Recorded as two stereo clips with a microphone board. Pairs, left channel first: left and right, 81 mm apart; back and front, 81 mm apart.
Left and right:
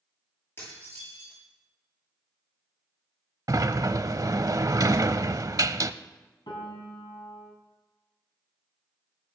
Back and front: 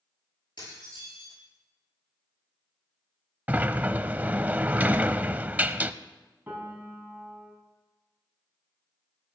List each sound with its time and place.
0.6 s dishes clattering: 150° left, 9.5 m
3.5 s a sliding door: 65° right, 0.6 m
6.5 s a piano: 65° left, 4 m